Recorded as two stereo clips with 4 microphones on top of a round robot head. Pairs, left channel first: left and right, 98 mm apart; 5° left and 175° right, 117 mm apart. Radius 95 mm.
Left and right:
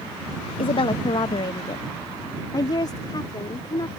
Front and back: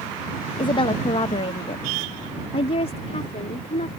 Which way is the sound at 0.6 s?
55° left.